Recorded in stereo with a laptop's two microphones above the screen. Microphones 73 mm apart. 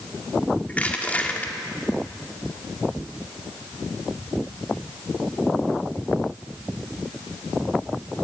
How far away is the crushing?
About 1.6 m.